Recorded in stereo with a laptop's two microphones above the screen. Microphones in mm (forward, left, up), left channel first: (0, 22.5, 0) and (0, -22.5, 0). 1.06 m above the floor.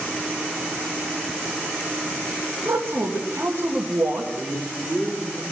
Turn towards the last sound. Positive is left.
turn(degrees=40)  # may be behind; listen again after turning